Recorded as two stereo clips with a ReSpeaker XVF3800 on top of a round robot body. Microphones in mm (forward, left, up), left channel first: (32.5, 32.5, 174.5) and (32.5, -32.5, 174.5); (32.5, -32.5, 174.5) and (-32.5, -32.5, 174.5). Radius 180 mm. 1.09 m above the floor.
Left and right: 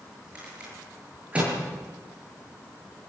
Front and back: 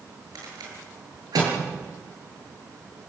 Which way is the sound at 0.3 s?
165° right.